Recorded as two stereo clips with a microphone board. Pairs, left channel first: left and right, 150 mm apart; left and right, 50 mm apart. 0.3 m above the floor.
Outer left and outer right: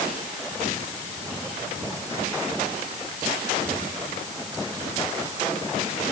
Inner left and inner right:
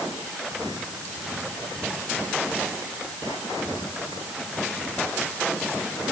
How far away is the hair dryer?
No hair dryer in this recording.